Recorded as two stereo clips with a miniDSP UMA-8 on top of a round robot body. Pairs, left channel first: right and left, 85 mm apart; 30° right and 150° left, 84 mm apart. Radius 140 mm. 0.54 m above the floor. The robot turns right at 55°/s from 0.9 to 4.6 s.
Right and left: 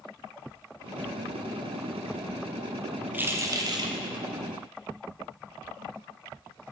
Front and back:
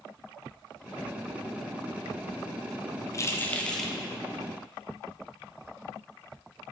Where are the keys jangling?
20° left, 0.8 m; by 3.9 s 65° left, 0.8 m.